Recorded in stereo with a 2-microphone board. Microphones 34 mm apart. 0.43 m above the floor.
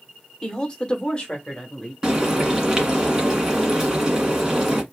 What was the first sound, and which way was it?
A woman speaking, 20° left (ahead or behind).